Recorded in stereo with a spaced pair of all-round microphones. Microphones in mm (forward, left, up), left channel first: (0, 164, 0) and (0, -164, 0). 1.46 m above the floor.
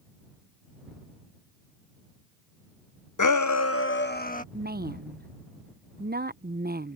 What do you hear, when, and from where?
3.2 s a shout: 65° left (ahead or behind); by 4.4 s 25° left (ahead or behind)
4.5 s a woman speaking: 30° right (ahead or behind)